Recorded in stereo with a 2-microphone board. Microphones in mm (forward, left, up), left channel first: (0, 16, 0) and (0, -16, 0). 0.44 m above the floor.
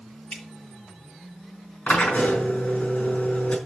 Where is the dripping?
35° left (ahead or behind), 7 m.